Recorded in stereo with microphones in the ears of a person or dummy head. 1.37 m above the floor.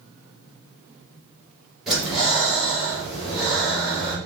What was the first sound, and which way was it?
Breathing, centre (ahead or behind).